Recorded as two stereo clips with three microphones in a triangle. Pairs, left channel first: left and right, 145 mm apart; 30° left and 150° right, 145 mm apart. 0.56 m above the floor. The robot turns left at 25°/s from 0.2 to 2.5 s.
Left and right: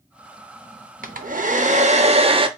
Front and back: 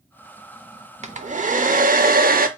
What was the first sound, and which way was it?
A hair dryer, 110° right.